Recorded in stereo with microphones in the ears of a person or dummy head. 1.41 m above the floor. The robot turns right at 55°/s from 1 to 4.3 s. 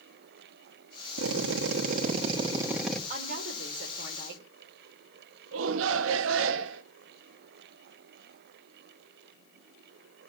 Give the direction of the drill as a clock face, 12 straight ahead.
3 o'clock.